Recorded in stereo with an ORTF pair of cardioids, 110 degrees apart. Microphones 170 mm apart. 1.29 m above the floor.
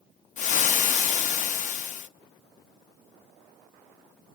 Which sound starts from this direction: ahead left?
Frying, at 0.4 s.